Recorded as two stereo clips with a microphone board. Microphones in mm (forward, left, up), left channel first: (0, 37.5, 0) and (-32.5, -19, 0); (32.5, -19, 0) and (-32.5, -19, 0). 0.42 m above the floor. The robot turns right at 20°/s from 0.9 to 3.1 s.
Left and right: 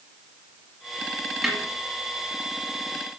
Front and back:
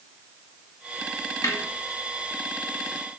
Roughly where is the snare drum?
Ahead right.